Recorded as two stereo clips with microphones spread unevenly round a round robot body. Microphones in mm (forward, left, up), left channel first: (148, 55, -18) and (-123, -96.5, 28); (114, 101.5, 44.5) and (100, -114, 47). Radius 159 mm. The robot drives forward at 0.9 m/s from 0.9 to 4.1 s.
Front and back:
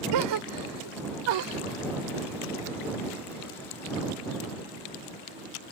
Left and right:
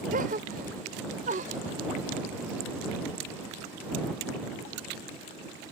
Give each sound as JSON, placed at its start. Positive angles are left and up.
{"t": 0.1, "sound": "a gasp", "azimuth_deg": -155}